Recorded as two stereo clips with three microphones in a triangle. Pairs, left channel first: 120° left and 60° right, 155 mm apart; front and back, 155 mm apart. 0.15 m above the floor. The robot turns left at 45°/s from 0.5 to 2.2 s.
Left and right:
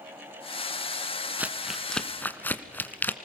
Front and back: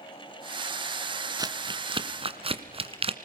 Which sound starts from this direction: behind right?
Crumpling, at 1.4 s.